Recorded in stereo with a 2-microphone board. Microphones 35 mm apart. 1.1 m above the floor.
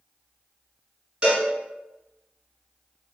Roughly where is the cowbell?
Right.